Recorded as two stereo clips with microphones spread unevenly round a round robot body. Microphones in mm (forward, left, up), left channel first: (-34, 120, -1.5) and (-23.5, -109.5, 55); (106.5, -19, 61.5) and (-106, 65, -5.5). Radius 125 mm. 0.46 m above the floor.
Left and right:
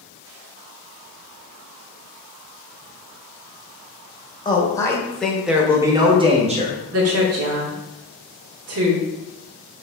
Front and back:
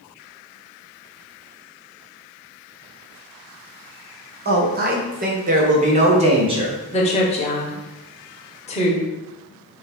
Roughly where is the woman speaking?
Right.